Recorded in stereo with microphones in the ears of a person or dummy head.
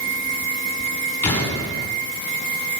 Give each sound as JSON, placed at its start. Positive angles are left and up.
{"t": 1.2, "sound": "an explosion", "side_deg": 10, "distance_m": 5.0}